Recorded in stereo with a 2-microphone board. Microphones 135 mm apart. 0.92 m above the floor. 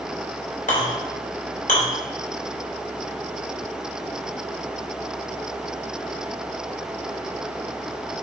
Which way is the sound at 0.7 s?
85° left.